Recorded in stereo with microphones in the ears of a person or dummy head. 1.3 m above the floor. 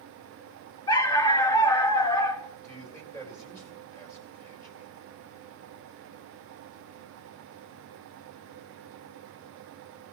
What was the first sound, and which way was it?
A dog barking, 25° left (ahead or behind).